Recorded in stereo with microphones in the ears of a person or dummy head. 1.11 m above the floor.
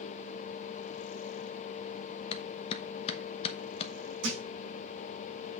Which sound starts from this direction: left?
A clap, at 2.3 s.